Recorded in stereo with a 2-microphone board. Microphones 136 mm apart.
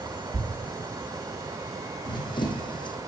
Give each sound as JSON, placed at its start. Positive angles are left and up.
{"t": 0.3, "sound": "a thud", "side_deg": -45, "distance_m": 0.9}
{"t": 2.0, "sound": "running footsteps", "side_deg": 35, "distance_m": 1.0}